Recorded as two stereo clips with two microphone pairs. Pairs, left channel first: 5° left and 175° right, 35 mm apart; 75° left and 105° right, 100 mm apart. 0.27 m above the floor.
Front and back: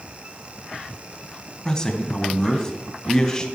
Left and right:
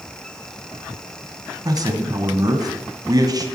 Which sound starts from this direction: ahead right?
A man speaking, at 1.6 s.